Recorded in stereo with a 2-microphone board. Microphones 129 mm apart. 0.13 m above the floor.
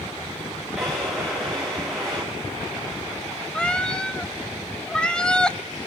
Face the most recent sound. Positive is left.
turn(degrees=5)  # may be behind; listen again after turning